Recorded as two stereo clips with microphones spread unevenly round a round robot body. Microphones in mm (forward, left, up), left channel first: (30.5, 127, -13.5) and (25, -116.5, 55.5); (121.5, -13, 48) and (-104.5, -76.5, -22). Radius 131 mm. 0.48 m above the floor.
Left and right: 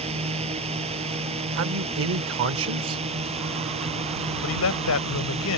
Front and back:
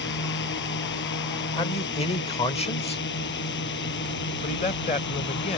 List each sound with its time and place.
0.0 s a drone: 25° right
1.6 s a man speaking: 55° right
4.4 s a man speaking: 90° left